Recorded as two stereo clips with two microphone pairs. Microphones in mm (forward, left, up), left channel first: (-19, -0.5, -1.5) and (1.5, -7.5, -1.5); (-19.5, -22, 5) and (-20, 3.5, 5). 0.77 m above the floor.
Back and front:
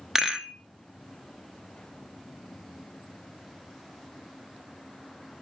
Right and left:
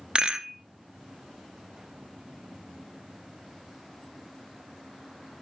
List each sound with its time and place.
0.1 s a rattle: 40° left, 0.7 m